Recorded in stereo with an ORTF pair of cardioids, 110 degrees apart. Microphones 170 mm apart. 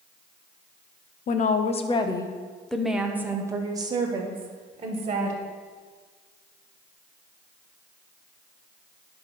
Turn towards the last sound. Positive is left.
turn(degrees=-35)